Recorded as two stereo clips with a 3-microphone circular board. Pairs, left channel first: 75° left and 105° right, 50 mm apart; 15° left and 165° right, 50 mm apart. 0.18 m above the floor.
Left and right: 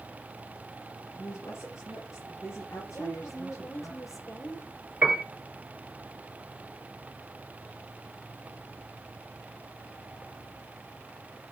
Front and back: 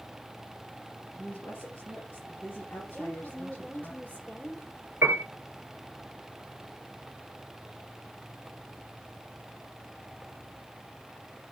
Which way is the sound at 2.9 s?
75° left.